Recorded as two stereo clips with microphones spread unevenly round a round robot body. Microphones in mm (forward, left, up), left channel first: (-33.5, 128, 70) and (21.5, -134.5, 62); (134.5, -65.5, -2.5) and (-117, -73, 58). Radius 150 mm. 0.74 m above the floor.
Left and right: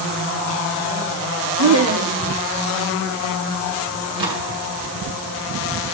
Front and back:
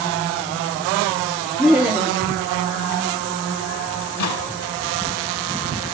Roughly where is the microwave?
Ahead.